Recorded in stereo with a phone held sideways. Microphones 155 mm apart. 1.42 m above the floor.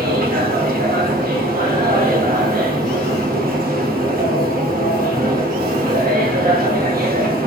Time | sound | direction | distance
0.0 | a machine running | 65° right (ahead or behind) | 0.7 m